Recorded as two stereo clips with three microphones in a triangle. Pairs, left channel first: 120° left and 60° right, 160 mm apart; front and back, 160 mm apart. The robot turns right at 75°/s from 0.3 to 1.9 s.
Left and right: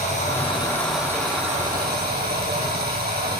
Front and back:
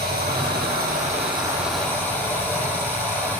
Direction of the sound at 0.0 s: 165° left.